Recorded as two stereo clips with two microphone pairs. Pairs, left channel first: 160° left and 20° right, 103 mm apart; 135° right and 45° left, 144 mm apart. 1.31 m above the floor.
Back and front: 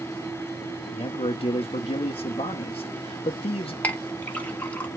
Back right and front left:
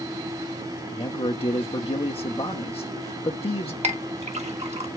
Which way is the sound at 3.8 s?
85° left.